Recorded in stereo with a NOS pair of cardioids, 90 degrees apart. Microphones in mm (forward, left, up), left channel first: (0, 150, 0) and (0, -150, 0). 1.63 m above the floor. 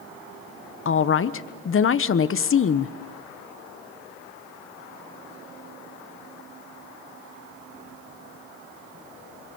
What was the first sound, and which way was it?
A woman speaking, 40° left.